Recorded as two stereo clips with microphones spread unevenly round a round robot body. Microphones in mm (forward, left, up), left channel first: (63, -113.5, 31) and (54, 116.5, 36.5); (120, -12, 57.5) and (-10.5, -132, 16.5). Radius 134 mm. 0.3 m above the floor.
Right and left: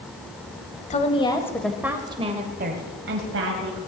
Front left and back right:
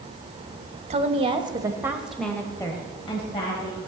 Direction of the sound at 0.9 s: 140° right.